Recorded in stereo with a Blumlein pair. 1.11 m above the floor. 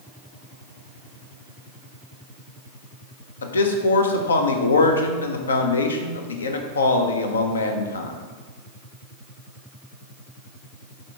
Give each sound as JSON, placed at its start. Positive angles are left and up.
{"t": 3.4, "sound": "a man speaking", "azimuth_deg": 70, "distance_m": 0.5}